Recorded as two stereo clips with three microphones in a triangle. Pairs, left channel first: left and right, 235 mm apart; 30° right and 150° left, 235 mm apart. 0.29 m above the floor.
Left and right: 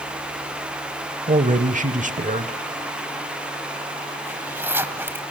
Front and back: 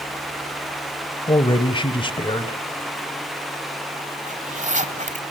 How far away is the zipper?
About 1.4 m.